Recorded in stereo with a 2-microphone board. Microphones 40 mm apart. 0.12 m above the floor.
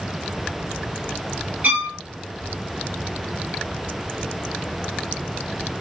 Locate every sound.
1.6 s a violin: 35° right (ahead or behind), 2 m